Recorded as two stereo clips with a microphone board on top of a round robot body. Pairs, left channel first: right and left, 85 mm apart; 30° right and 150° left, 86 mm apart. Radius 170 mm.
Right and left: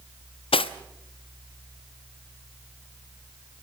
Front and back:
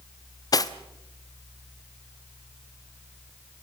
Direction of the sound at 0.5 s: 80° right.